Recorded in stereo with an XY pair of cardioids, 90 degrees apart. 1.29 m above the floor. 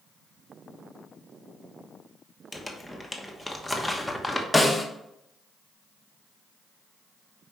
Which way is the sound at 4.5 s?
5° left.